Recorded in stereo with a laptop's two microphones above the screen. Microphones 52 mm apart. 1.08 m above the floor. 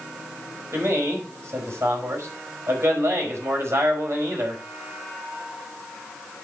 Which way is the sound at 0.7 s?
55° right (ahead or behind).